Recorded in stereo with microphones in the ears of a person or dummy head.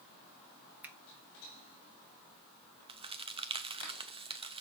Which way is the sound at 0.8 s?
10° right (ahead or behind).